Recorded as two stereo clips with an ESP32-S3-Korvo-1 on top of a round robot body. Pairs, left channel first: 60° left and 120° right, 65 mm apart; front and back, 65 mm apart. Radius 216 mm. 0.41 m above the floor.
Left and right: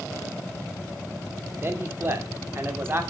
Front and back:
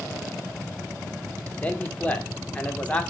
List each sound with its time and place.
1.6 s a man speaking: 70° right, 2.5 m